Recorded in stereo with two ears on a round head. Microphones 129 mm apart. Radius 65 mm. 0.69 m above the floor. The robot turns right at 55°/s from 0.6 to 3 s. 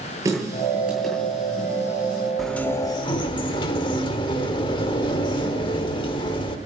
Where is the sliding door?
Straight ahead, 1.2 m; by 6.6 s 35° left, 1.2 m.